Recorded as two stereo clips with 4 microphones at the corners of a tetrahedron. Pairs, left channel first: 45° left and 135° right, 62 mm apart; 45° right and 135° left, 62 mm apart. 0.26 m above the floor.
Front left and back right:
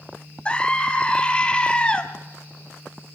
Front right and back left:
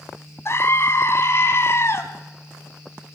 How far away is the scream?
About 2 m.